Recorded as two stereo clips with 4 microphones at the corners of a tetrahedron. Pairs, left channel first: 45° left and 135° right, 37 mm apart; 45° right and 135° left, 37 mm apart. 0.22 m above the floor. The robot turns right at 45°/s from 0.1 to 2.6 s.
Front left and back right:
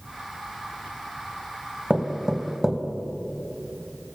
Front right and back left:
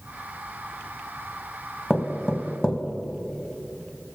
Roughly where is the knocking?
Right.